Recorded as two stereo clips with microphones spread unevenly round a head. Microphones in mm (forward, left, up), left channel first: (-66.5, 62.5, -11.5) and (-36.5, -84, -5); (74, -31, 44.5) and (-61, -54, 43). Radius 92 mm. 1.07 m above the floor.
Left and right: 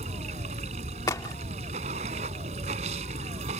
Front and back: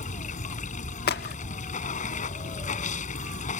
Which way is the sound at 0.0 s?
20° right.